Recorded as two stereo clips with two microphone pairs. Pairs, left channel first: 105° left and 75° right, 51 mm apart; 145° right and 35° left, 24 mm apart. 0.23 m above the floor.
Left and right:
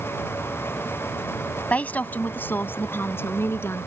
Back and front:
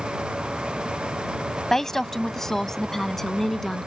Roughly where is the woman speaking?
Behind left.